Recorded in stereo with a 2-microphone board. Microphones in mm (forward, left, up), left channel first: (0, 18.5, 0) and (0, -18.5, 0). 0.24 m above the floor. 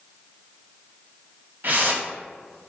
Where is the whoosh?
55° right (ahead or behind), 0.5 m.